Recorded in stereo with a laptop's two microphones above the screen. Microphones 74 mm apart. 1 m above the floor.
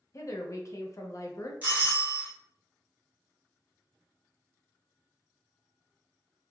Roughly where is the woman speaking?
Left.